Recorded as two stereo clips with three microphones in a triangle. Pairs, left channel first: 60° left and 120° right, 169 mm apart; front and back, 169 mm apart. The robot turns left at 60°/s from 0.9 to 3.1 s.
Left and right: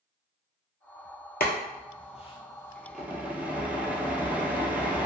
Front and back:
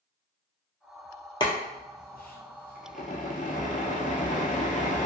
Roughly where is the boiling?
Ahead left.